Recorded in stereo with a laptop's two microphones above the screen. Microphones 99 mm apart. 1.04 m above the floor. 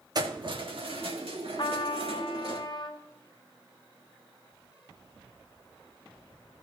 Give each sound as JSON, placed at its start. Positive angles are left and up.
{"t": 0.1, "sound": "keys jangling", "side_deg": -40, "distance_m": 1.4}
{"t": 1.6, "sound": "a trumpet", "side_deg": 50, "distance_m": 0.6}